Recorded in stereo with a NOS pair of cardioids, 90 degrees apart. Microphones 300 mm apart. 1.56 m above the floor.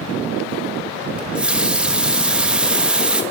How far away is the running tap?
About 1.6 m.